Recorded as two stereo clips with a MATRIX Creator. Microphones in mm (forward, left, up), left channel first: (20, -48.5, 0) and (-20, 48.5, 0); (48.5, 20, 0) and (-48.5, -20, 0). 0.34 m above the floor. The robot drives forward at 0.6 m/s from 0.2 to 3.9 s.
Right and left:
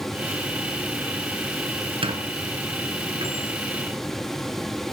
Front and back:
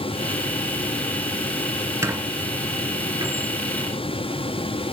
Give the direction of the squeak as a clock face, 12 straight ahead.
7 o'clock.